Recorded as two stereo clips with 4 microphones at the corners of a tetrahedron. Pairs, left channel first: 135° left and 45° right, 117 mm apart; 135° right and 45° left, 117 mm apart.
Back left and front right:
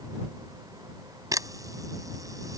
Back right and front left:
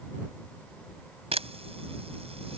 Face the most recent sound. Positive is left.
turn(degrees=15)